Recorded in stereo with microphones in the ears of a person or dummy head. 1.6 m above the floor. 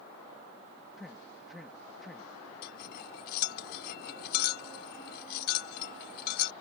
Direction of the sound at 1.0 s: 5° right (ahead or behind).